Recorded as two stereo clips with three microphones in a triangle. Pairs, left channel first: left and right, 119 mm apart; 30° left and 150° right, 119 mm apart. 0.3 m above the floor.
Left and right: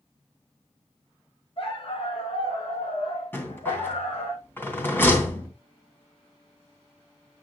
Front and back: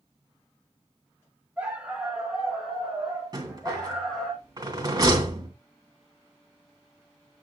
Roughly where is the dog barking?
Behind left.